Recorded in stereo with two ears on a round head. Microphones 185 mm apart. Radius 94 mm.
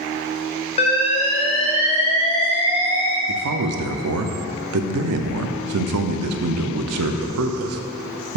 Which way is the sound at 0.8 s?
30° left (ahead or behind).